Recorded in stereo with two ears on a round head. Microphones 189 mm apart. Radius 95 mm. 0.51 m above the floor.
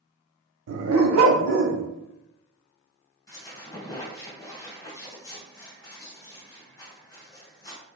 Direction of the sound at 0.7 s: 70° right (ahead or behind).